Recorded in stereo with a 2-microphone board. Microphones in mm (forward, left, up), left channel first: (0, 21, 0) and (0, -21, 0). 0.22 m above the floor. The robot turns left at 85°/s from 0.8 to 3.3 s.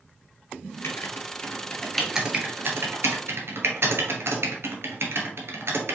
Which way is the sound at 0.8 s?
75° left (ahead or behind).